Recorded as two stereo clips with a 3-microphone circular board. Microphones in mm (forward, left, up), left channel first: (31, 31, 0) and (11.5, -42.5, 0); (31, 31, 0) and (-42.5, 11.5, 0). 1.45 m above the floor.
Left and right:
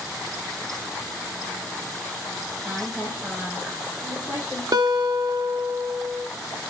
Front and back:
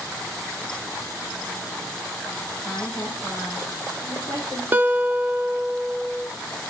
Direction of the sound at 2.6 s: 30° right.